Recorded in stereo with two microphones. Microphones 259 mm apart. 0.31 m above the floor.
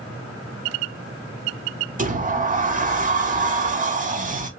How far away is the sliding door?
About 0.8 m.